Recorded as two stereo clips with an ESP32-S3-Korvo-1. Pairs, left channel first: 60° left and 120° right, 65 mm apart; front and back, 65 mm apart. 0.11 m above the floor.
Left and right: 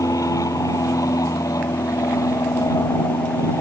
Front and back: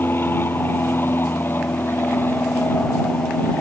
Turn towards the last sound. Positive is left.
turn(degrees=50)